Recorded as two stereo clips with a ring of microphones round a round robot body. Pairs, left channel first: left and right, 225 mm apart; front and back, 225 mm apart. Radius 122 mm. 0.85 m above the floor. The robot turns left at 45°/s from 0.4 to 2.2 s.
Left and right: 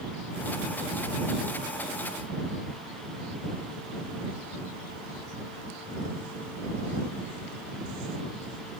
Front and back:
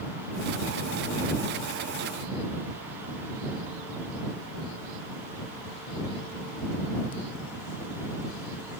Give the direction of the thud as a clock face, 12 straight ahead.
I don't hear a thud.